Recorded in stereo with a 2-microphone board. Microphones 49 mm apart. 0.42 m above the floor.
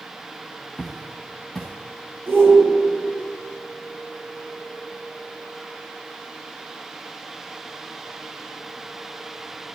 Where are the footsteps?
5° right (ahead or behind), 3.5 m.